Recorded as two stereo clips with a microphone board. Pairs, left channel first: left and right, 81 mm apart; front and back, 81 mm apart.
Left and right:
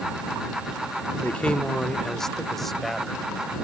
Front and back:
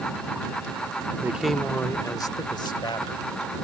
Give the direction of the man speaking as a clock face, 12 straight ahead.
7 o'clock.